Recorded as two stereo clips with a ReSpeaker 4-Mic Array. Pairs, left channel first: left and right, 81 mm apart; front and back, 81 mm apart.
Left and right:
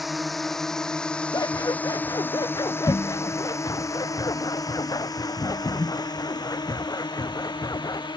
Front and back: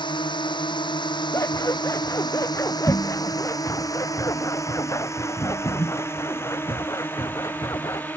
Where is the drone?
Straight ahead; by 8.2 s 70° left.